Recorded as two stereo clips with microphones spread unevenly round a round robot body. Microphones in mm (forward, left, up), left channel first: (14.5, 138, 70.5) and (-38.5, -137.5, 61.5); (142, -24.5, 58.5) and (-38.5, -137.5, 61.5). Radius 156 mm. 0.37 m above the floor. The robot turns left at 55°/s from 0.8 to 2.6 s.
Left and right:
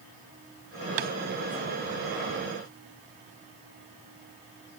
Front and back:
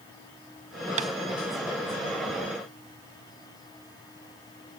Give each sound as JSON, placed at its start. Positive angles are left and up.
{"t": 1.0, "sound": "tapping", "azimuth_deg": -85, "distance_m": 0.5}